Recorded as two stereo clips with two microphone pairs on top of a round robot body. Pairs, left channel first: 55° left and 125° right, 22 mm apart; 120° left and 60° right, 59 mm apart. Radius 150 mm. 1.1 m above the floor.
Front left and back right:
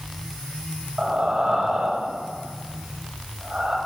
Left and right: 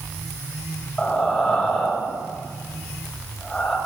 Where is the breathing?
165° right, 6 m.